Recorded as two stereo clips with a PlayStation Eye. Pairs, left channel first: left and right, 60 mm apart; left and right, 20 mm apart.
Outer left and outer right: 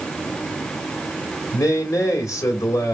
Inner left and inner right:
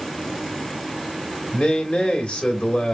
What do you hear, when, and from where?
1.5 s a man speaking: 60° left (ahead or behind), 2 m